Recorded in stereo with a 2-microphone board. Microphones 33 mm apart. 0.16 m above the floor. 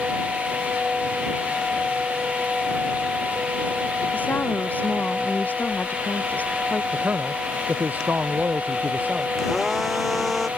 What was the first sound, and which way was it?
A woman speaking, 60° left (ahead or behind).